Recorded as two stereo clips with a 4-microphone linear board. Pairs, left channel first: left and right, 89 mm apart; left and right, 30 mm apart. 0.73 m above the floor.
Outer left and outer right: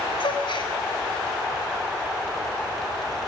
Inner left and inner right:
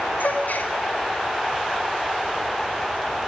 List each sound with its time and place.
0.2 s a gasp: 70° left (ahead or behind), 2 m